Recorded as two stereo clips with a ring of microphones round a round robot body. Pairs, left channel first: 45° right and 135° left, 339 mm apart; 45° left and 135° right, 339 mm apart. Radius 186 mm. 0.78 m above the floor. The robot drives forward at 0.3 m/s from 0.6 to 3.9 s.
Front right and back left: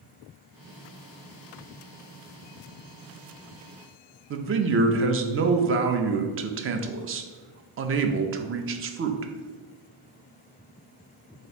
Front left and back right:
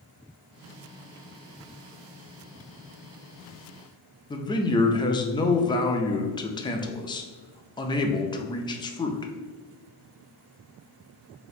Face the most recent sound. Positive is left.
turn(degrees=115)